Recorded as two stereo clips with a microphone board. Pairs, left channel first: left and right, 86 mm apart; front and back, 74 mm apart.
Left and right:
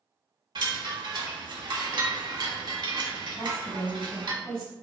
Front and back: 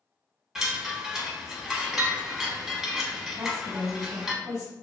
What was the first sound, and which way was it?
A chime, 100° right.